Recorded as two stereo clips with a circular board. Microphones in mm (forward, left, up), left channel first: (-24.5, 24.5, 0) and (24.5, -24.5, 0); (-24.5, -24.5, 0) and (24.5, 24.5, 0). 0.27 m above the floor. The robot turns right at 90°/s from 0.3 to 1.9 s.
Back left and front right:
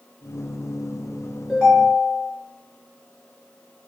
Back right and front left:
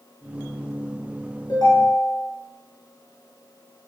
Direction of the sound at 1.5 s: 135° right.